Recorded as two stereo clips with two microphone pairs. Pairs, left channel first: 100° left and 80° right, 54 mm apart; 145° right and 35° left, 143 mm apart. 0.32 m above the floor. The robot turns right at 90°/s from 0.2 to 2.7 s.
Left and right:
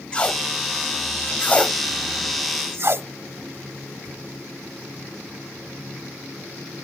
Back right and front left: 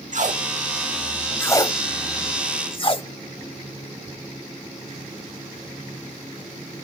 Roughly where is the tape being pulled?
Ahead left.